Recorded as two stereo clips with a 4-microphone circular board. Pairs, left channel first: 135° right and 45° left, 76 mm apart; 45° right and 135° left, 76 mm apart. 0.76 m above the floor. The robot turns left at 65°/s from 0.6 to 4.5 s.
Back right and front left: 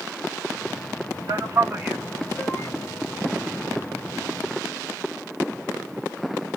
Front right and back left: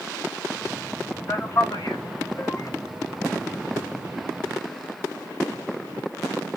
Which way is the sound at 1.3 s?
15° left.